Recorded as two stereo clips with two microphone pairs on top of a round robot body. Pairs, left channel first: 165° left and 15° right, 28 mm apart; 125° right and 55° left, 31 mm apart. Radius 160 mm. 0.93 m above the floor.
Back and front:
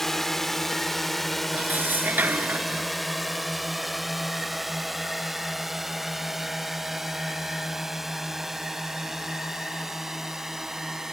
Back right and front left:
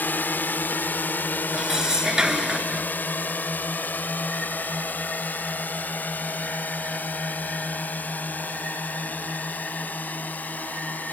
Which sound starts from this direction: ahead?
Dishes clattering, at 1.5 s.